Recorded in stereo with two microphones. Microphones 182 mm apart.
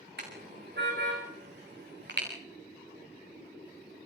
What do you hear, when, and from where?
0.2 s a car horn: 65° right (ahead or behind), 6 m; by 2.3 s 75° right (ahead or behind), 7 m